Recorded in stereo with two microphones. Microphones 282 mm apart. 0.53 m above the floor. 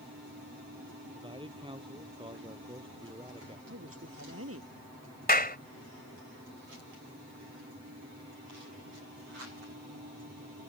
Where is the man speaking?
20° right (ahead or behind).